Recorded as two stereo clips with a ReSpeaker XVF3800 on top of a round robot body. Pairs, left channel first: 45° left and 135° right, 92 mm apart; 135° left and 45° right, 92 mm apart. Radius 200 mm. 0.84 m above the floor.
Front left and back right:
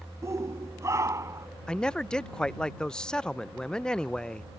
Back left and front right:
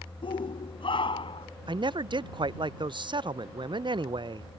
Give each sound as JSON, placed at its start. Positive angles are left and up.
{"t": 0.2, "sound": "a shout", "azimuth_deg": 165}
{"t": 1.7, "sound": "a man speaking", "azimuth_deg": -35}